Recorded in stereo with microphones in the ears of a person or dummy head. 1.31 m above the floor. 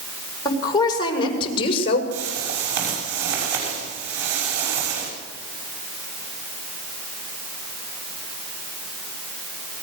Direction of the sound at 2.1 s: 60° right (ahead or behind).